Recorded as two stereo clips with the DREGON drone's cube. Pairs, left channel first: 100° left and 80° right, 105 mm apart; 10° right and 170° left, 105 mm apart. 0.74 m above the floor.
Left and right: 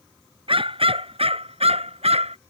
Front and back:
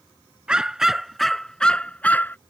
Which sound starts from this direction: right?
A dog barking, at 0.5 s.